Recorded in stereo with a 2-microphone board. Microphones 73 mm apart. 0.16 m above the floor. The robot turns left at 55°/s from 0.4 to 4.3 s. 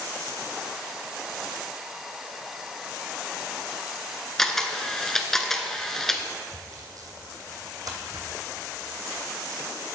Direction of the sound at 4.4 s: 5° left (ahead or behind).